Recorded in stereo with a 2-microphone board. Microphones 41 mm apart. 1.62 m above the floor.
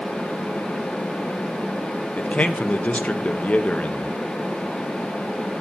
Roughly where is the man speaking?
Left.